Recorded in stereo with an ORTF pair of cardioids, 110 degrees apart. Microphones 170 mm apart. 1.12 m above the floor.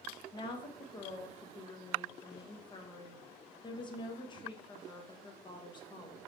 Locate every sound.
0.3 s a woman speaking: 30° left, 0.9 m